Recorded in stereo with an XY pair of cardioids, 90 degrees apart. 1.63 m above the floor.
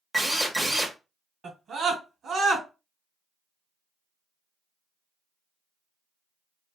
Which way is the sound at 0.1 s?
20° right.